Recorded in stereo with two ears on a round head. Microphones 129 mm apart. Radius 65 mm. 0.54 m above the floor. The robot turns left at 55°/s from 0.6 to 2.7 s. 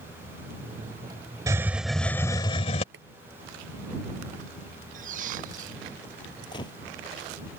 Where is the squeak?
55° right (ahead or behind).